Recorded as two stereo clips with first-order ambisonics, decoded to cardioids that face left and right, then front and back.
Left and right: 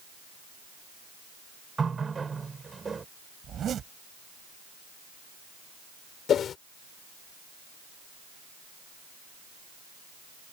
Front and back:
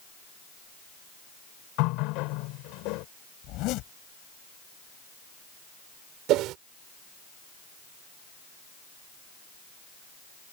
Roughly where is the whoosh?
Behind left.